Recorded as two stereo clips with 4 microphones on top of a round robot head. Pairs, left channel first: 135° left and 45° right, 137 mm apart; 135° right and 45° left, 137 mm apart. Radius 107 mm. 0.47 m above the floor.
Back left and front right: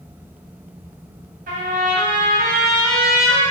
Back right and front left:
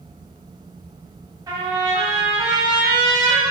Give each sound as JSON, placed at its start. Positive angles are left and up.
{"t": 1.5, "sound": "a trumpet", "azimuth_deg": -20, "distance_m": 2.5}